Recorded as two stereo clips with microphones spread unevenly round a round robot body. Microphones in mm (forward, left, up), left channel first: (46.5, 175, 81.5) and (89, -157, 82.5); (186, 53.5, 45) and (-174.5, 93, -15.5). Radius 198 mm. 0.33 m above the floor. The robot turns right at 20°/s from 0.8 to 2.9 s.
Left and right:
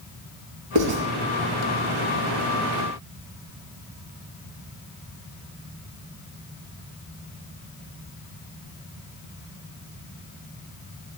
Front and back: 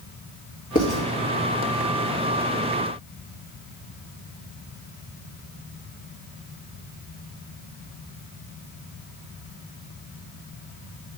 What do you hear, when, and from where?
0.8 s writing: 80° right, 1.9 m; by 1.0 s 75° right, 1.9 m